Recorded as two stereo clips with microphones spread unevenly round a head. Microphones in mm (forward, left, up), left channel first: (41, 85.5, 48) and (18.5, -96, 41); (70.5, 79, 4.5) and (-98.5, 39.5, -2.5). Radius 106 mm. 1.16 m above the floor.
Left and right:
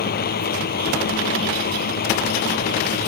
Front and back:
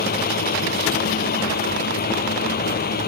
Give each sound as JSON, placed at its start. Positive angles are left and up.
{"t": 0.0, "sound": "a fan", "azimuth_deg": 45}